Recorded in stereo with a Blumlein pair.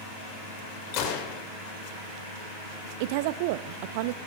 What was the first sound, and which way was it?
A gunshot, 40° left.